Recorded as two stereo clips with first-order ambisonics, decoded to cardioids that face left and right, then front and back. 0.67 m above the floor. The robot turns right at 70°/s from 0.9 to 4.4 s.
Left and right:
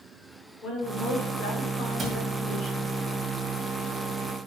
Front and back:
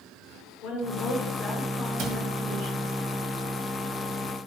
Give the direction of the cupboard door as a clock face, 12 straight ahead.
5 o'clock.